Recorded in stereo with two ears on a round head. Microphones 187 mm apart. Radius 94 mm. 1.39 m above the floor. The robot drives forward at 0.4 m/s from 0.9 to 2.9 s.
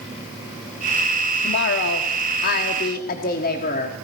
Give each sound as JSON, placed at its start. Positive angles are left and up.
{"t": 1.4, "sound": "a woman speaking", "side_deg": 60, "distance_m": 1.0}